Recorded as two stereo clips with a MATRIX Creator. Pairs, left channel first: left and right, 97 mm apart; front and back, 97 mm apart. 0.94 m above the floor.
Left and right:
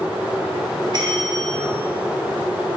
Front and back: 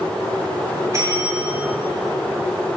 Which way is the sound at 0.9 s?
120° right.